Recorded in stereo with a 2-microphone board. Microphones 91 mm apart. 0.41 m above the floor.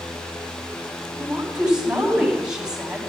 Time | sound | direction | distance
1.1 | a woman speaking | 10° right (ahead or behind) | 3.5 m